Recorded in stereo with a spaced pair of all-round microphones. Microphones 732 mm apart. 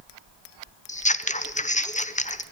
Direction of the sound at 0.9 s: 10° left (ahead or behind).